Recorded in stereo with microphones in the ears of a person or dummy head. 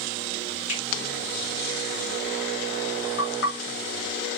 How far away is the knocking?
About 1.9 m.